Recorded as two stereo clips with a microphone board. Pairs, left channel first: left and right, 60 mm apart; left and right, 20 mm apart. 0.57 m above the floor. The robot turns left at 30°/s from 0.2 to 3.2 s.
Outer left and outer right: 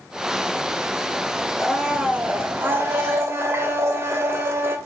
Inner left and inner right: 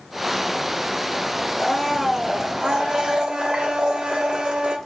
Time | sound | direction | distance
1.6 | a blender | 10° right | 2.5 m